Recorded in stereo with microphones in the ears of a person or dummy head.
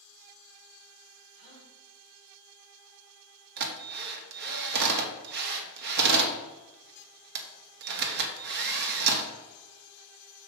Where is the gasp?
40° right (ahead or behind), 3.5 m.